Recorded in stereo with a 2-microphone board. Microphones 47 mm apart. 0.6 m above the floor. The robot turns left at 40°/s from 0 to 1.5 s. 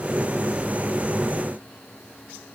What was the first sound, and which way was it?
Only background noise.